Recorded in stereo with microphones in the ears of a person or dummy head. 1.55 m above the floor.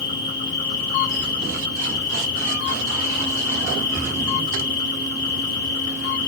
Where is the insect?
30° left (ahead or behind), 1.7 m.